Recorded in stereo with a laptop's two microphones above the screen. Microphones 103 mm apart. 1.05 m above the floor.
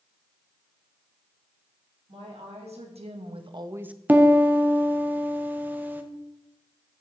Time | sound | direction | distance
2.1 | a woman speaking | 80° right | 2.5 m
4.1 | a piano | 15° right (ahead or behind) | 0.6 m